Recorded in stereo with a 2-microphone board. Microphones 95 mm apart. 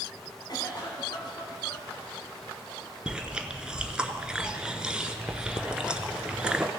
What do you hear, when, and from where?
0.5 s a cough: 50° left (ahead or behind), 2.0 m
3.1 s chewing: 10° right (ahead or behind), 0.6 m